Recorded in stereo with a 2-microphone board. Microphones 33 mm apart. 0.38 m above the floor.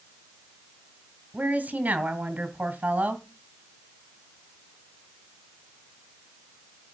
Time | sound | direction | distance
1.3 | a woman speaking | 55° right (ahead or behind) | 2 m